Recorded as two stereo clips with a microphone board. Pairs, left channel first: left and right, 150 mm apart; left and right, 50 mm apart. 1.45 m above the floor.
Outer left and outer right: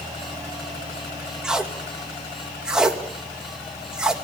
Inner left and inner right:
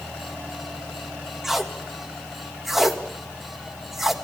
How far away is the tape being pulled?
About 1.9 m.